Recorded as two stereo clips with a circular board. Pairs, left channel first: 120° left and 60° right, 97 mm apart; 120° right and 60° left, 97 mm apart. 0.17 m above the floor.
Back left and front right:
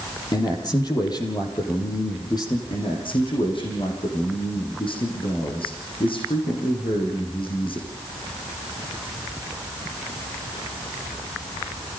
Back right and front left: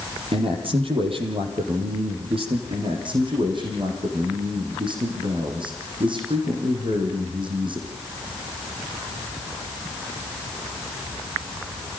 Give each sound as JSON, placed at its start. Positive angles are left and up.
{"t": 0.3, "sound": "a man speaking", "azimuth_deg": 75, "distance_m": 6.5}
{"t": 2.7, "sound": "a man speaking", "azimuth_deg": 90, "distance_m": 6.5}